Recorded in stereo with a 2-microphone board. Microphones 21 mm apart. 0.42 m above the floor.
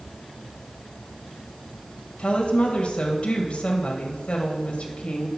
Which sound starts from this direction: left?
A woman speaking, at 2.2 s.